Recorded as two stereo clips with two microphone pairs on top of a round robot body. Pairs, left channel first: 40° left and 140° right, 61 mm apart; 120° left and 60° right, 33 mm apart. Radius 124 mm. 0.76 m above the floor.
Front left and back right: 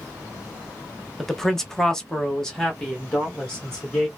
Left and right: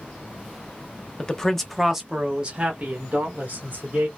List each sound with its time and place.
1.2 s a man speaking: 110° left, 1.1 m; by 4.1 s 30° right, 2 m